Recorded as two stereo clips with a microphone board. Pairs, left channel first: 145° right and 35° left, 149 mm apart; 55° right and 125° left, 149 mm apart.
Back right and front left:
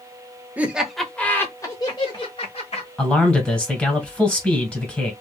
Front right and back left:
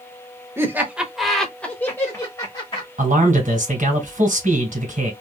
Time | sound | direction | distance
0.6 | laughter | 90° left | 1.1 m
3.0 | a man speaking | 130° left | 2.5 m